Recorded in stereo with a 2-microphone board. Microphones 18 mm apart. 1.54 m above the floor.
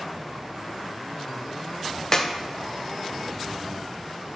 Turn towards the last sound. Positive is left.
turn(degrees=30)  # may be behind; listen again after turning